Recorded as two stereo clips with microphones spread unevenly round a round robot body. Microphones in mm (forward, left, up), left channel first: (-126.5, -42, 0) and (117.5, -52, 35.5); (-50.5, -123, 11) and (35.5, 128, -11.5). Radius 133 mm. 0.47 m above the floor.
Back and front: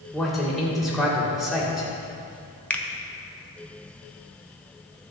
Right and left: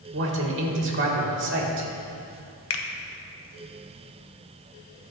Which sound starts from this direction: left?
A man speaking, at 0.1 s.